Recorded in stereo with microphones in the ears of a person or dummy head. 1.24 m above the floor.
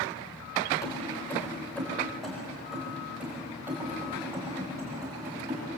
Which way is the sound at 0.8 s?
20° left (ahead or behind).